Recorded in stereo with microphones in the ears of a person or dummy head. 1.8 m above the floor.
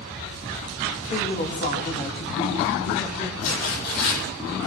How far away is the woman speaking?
About 2.5 m.